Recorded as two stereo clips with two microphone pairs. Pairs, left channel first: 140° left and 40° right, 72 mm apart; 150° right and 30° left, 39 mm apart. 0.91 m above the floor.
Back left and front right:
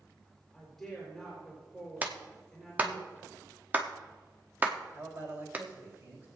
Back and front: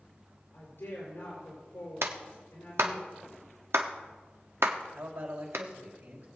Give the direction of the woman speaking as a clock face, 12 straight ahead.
4 o'clock.